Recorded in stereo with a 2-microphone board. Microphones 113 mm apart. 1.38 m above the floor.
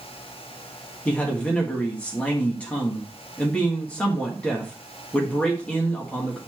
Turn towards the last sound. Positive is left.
turn(degrees=10)  # may be behind; listen again after turning